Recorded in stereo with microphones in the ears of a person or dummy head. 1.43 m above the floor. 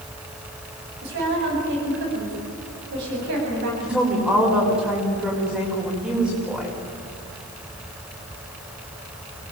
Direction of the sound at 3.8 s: 5° right (ahead or behind).